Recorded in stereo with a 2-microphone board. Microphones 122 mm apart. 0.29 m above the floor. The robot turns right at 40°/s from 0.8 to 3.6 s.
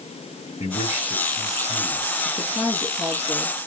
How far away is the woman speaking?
About 3 m.